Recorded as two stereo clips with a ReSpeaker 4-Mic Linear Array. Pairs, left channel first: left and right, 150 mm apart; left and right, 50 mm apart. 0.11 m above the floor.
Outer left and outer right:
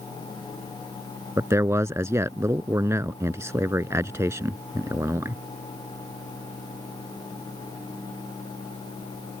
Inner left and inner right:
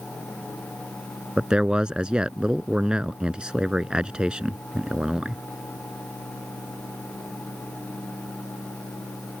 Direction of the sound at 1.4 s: 20° right (ahead or behind).